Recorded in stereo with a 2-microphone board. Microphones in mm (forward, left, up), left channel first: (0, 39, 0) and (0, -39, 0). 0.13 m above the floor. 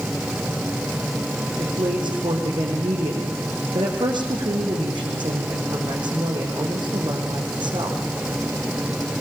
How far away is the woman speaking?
About 5.5 m.